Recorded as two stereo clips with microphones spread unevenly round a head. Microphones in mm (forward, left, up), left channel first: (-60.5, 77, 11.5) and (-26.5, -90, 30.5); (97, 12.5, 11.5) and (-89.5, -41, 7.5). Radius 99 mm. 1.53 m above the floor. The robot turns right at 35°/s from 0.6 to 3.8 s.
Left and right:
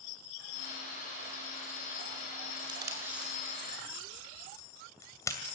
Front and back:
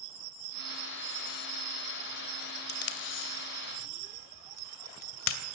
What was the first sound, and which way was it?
Tape being pulled, 15° right.